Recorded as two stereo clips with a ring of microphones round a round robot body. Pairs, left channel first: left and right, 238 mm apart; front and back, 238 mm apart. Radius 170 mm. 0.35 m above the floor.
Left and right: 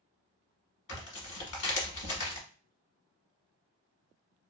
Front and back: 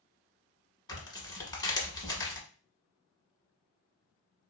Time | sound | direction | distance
0.9 | tearing paper | 75° left | 1.3 m